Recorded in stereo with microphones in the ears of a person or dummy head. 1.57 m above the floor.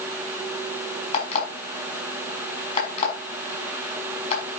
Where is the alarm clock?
35° left (ahead or behind), 5.5 m.